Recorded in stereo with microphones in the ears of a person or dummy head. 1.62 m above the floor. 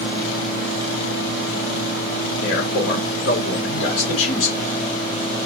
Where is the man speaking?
55° left (ahead or behind), 3 m.